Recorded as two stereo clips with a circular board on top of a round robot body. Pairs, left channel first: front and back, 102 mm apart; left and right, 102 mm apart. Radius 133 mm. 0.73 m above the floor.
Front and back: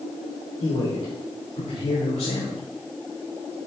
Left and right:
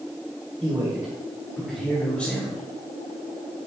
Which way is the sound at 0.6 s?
35° right.